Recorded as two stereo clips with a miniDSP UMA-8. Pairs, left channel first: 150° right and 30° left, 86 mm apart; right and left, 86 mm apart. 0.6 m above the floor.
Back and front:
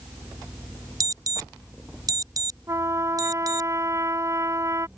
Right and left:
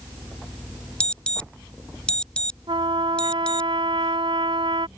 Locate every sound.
1.0 s an alarm: 15° right
2.7 s a trumpet: 85° left